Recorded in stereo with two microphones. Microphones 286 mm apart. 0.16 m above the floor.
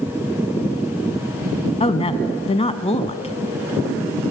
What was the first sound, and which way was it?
A woman speaking, 20° left (ahead or behind).